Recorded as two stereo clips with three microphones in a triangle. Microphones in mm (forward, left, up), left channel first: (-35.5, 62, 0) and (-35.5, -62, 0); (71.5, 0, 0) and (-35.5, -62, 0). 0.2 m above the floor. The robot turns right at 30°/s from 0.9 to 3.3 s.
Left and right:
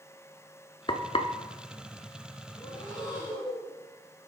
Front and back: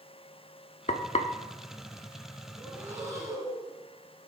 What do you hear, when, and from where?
0.9 s frying: 45° left, 0.5 m; by 1.3 s 60° left, 0.5 m
2.6 s breathing: 140° left, 2.5 m; by 3.7 s 160° left, 2.5 m